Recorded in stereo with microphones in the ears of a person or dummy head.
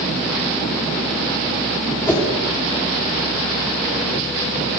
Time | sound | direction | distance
2.1 | a whoosh | 15° left (ahead or behind) | 2.5 m